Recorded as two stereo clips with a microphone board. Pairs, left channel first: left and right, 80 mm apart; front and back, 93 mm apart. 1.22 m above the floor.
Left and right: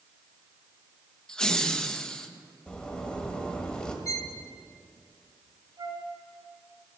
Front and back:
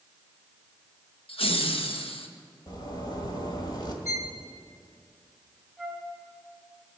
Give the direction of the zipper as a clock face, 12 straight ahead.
11 o'clock.